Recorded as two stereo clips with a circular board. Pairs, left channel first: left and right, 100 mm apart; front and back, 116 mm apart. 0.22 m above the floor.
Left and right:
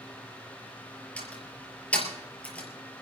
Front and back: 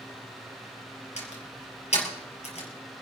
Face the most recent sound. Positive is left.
turn(degrees=15)